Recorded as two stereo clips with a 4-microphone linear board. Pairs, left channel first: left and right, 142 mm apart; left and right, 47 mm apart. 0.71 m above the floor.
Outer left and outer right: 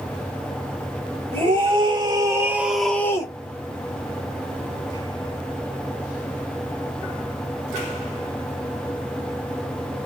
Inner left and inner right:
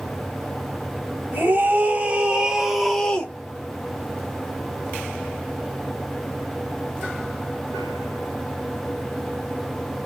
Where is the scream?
45° right (ahead or behind), 2.5 m; by 3.3 s 30° left (ahead or behind), 1.5 m.